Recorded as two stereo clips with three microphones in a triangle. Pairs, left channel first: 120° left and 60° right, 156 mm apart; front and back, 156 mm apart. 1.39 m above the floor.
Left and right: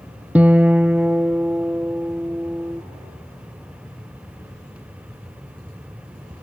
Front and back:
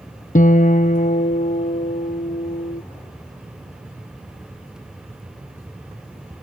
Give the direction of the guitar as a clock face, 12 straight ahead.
11 o'clock.